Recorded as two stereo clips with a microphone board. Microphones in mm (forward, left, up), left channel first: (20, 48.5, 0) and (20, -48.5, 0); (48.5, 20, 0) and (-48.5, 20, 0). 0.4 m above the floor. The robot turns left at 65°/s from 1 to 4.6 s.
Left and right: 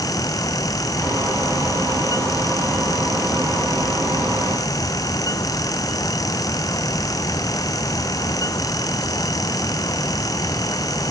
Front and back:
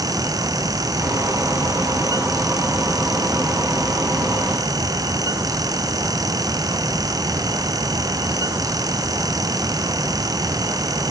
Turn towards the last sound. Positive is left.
No sound to turn to.